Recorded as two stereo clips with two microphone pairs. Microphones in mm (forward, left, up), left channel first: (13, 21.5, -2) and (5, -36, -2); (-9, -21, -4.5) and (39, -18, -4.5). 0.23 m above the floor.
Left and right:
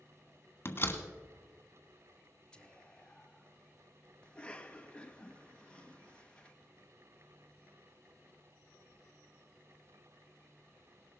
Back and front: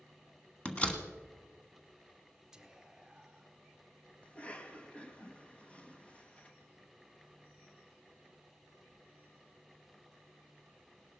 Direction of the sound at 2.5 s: 45° left.